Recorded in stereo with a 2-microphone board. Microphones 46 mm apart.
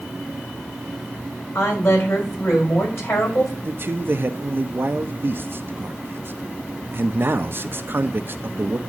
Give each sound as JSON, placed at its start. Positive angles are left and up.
{"t": 1.6, "sound": "a woman speaking", "side_deg": 65, "distance_m": 5.0}
{"t": 3.6, "sound": "a man speaking", "side_deg": -50, "distance_m": 0.7}